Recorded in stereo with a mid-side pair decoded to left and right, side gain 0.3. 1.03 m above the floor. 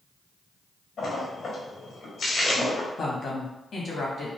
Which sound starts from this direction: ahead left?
A woman speaking, at 3.0 s.